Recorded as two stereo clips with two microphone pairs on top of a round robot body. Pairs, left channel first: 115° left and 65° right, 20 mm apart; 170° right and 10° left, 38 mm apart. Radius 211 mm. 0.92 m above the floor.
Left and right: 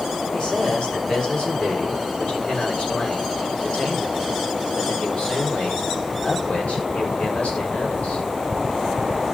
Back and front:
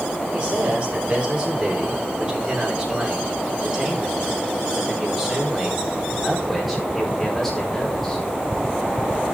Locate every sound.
0.3 s a man speaking: 65° left, 6.5 m; by 8.2 s 105° left, 6.5 m